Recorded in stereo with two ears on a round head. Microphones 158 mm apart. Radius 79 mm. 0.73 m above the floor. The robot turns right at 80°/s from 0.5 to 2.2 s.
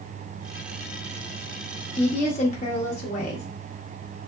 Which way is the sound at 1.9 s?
25° left (ahead or behind).